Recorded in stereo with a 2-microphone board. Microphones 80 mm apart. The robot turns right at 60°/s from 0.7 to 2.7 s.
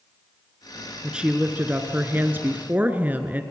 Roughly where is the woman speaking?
Centre.